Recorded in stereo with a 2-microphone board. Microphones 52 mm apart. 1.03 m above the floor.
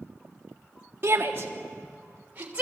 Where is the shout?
45° right (ahead or behind), 1.7 m; by 2.6 s 25° right (ahead or behind), 3.5 m.